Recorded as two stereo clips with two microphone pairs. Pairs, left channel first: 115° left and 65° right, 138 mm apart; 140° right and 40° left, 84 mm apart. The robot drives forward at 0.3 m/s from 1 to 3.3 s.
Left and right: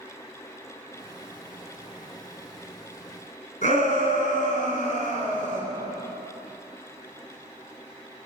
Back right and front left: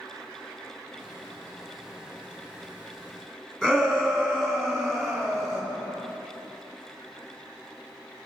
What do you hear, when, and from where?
3.6 s a shout: 135° left, 2.5 m